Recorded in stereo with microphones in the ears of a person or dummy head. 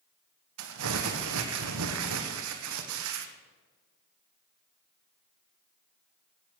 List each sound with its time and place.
0.6 s crumpling: 80° right, 1.1 m